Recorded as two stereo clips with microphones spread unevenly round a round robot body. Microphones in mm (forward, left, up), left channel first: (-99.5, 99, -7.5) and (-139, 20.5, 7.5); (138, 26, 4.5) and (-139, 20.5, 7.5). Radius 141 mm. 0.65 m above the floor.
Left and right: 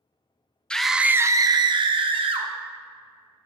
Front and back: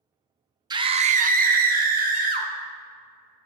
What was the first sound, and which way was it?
A scream, 115° left.